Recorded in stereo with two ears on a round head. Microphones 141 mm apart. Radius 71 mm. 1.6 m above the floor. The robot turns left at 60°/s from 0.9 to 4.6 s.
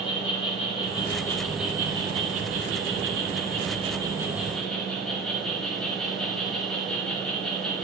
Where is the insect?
35° left, 10 m; by 7.8 s 175° left, 10 m.